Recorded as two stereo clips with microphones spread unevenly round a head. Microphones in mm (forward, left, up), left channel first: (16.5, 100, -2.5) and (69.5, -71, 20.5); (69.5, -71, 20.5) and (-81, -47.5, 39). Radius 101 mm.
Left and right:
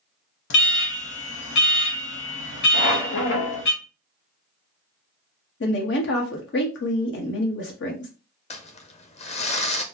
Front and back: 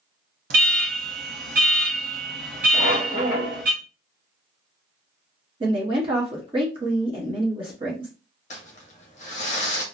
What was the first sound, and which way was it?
An alarm, 140° left.